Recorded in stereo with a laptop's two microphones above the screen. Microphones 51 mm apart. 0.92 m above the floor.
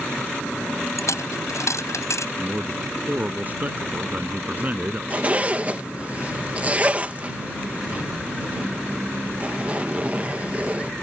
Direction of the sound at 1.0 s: 80° left.